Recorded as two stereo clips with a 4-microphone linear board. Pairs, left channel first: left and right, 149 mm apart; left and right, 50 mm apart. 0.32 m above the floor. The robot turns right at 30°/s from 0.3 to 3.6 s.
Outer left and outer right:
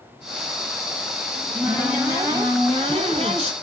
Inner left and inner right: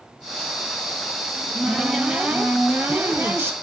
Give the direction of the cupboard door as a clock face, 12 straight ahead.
6 o'clock.